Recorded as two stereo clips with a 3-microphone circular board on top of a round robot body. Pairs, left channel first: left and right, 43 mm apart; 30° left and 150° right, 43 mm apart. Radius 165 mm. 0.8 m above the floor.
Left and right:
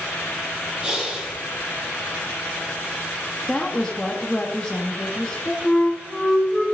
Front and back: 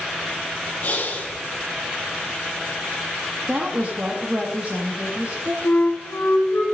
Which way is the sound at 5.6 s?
Straight ahead.